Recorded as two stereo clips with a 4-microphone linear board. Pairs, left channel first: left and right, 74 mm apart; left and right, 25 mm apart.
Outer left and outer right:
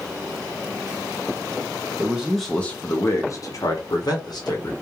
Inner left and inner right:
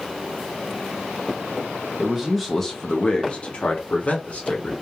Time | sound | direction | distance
2.0 | a man speaking | 20° right (ahead or behind) | 0.5 m